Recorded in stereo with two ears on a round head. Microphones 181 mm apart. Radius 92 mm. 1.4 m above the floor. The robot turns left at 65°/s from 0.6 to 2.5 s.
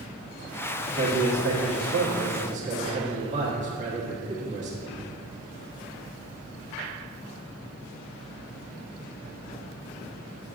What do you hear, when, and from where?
0.9 s a man speaking: 35° right, 1.3 m; by 5.0 s 140° right, 1.3 m